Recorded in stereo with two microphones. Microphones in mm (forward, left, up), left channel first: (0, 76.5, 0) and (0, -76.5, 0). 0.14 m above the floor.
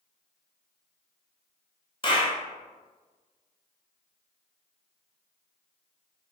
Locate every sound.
2.0 s a clap: 35° left (ahead or behind), 1.0 m